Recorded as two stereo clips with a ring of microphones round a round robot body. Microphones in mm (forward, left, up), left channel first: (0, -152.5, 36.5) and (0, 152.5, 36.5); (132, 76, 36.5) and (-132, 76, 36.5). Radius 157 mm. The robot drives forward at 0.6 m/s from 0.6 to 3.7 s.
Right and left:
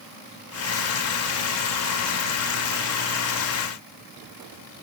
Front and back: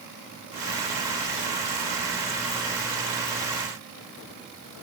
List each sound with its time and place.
Only background noise.